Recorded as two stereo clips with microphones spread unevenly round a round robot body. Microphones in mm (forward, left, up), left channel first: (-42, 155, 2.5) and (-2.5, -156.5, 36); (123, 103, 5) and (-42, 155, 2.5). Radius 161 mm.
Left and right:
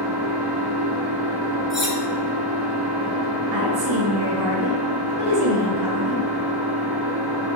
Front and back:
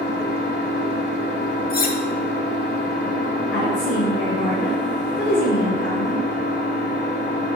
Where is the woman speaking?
60° right, 3 m.